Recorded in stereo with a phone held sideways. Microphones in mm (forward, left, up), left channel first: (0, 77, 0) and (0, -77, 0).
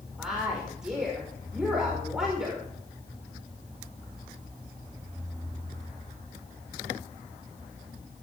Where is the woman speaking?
5° right (ahead or behind), 5 m.